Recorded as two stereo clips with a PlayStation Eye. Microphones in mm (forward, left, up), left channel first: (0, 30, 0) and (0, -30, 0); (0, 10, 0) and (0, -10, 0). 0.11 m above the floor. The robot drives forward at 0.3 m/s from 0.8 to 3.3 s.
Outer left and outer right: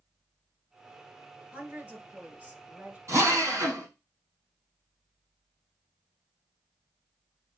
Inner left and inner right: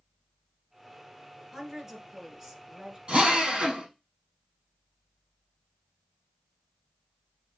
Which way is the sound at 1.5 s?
25° right (ahead or behind).